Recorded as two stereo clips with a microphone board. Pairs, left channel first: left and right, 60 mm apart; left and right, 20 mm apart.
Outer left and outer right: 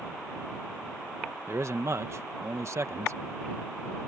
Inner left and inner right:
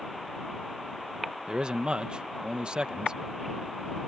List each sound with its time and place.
1.5 s a man speaking: 55° right (ahead or behind)